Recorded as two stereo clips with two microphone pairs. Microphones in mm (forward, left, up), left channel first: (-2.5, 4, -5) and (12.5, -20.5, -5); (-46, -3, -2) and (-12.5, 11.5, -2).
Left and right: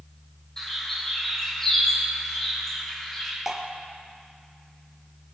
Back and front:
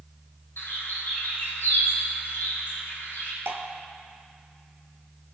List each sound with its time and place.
0.6 s a bird: 165° right, 5.5 m
3.5 s dripping: 20° left, 1.7 m